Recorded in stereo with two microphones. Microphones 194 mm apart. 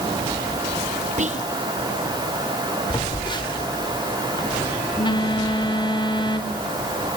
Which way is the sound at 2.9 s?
25° left (ahead or behind).